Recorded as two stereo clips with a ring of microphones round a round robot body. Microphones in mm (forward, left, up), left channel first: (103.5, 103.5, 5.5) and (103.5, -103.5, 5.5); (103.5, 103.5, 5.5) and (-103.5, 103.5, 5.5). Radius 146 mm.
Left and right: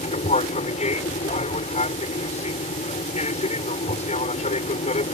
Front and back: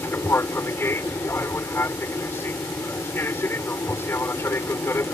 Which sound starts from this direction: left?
An aircraft, at 0.0 s.